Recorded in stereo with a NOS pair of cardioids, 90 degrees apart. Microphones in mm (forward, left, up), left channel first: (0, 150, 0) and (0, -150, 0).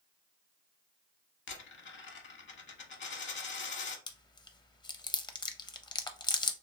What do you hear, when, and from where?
1.5 s a dropped coin: 40° left, 0.9 m
4.1 s chewing: 15° left, 0.5 m